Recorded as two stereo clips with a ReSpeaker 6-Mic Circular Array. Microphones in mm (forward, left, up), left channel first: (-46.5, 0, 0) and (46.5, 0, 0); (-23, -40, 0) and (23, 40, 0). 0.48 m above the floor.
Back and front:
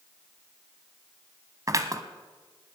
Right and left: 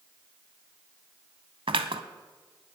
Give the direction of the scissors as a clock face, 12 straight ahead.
10 o'clock.